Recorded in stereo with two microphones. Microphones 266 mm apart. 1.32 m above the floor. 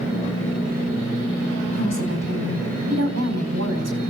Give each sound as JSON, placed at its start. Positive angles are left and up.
{"t": 1.7, "sound": "a woman speaking", "side_deg": -70, "distance_m": 4.5}